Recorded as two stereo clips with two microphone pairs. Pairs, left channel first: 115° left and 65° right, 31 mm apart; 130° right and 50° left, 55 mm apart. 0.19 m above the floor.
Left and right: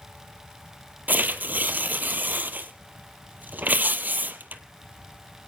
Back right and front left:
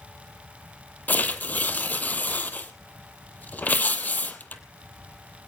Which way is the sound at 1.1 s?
75° right.